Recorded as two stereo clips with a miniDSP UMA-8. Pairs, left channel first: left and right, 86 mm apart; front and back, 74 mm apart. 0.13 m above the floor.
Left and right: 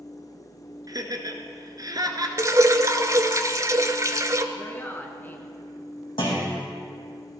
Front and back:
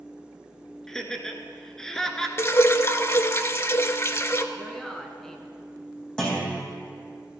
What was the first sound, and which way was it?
Laughter, 80° right.